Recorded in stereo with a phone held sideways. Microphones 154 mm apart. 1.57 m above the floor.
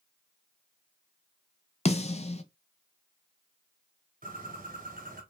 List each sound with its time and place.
1.9 s a snare drum: 40° left (ahead or behind), 0.5 m
4.2 s a bird: 55° right (ahead or behind), 1.1 m